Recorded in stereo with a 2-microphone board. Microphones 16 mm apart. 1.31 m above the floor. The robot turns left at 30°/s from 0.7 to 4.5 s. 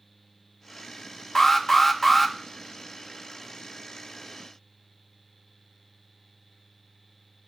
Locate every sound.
1.4 s an alarm: 35° left (ahead or behind), 0.8 m; by 2.4 s 5° left (ahead or behind), 0.8 m